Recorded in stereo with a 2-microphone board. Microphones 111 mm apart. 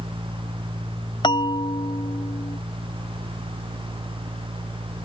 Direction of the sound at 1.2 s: 45° left (ahead or behind).